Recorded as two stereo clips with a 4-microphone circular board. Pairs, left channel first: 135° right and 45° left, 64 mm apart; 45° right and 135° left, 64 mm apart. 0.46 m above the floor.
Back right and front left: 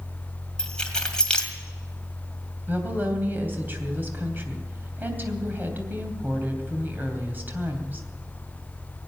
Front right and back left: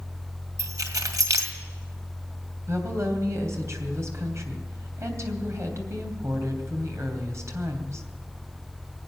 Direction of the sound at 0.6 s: 150° left.